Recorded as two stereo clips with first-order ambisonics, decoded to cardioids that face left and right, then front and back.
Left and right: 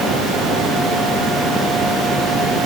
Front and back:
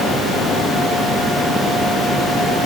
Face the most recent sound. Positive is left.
No sound to turn to.